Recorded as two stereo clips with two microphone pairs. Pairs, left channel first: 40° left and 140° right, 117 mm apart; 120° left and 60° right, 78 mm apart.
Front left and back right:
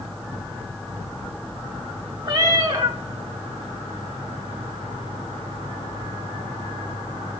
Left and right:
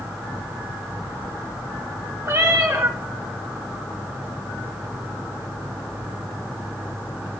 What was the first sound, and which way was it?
A cat meowing, 95° right.